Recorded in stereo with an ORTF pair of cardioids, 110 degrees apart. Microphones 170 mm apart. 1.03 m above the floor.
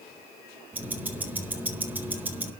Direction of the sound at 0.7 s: 10° right.